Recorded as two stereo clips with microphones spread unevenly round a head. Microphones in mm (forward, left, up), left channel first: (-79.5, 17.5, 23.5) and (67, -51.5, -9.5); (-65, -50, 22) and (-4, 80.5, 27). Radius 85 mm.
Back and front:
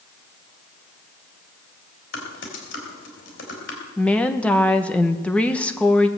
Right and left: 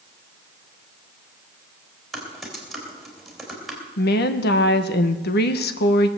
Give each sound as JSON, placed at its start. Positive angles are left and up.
{"t": 2.1, "sound": "typing on a keyboard", "azimuth_deg": 155, "distance_m": 4.0}
{"t": 4.0, "sound": "a woman speaking", "azimuth_deg": -125, "distance_m": 1.2}